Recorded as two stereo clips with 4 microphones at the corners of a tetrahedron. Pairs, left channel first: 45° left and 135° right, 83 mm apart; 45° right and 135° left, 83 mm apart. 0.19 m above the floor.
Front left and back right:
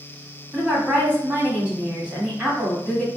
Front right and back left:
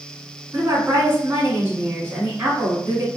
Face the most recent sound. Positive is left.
turn(degrees=165)